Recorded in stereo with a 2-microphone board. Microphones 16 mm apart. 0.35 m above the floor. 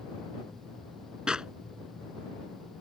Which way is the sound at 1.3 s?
55° right (ahead or behind).